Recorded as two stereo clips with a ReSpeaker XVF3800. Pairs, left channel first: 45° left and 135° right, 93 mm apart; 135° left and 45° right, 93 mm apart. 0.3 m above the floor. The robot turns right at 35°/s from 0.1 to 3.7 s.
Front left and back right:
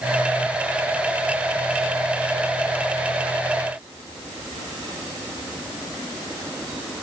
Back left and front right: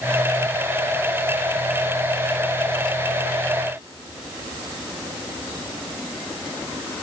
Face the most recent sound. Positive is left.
No sound to turn to.